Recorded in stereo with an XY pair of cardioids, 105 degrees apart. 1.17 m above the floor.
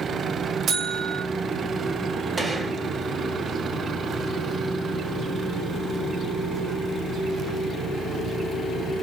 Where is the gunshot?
30° right, 2 m.